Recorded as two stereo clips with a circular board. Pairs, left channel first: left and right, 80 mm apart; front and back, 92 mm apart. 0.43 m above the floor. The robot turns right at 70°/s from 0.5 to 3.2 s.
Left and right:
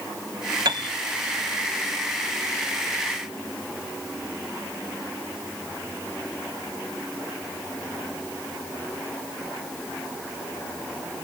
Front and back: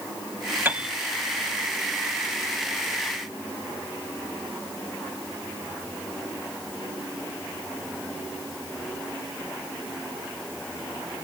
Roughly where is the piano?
Behind right.